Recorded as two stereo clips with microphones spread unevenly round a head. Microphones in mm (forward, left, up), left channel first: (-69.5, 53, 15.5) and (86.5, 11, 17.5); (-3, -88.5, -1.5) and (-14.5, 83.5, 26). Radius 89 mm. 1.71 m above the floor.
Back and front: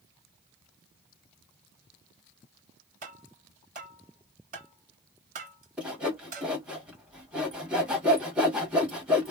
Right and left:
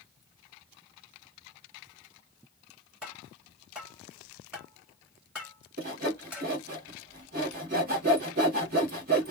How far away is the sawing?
About 1.6 m.